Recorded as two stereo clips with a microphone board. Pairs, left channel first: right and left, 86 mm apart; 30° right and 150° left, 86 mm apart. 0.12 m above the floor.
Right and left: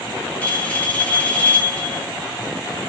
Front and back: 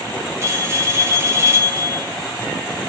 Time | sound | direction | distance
0.4 | a bell | 160° right | 0.9 m